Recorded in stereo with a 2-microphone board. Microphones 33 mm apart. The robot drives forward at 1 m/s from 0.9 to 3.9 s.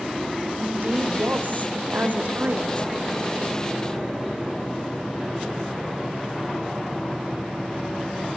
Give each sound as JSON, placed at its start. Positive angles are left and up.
{"t": 0.6, "sound": "a woman speaking", "side_deg": -60, "distance_m": 3.0}